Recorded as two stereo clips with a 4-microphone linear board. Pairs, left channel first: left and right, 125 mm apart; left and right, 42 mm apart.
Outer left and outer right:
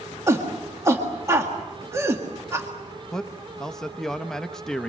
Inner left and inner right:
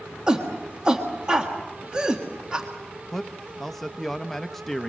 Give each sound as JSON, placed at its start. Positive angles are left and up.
{"t": 0.3, "sound": "a shout", "side_deg": -25, "distance_m": 1.8}
{"t": 3.1, "sound": "a man speaking", "side_deg": 5, "distance_m": 0.7}